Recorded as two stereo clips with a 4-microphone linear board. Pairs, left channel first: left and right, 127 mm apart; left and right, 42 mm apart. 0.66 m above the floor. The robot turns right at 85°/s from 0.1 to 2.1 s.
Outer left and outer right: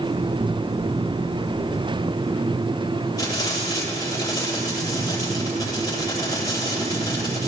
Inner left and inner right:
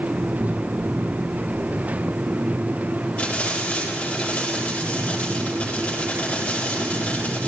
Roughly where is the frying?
Left.